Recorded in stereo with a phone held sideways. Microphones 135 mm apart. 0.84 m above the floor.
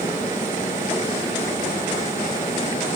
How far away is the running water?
About 5 m.